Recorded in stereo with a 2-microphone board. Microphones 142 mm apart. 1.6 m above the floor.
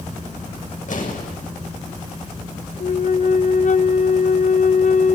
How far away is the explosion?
About 6.5 m.